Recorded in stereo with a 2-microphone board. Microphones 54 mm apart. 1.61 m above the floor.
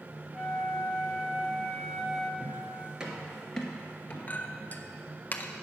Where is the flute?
Centre (ahead or behind), 1.3 m.